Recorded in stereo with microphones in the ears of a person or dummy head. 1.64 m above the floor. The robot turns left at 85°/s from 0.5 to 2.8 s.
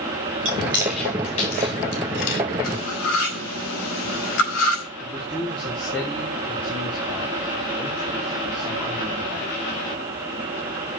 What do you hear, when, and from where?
0.5 s chewing: 40° right (ahead or behind), 2.5 m; by 2.4 s 55° left (ahead or behind), 2.5 m
2.6 s cutlery clinking: 75° left (ahead or behind), 5 m; by 4.8 s 80° left, 5 m
5.0 s a man speaking: 5° left (ahead or behind), 1.5 m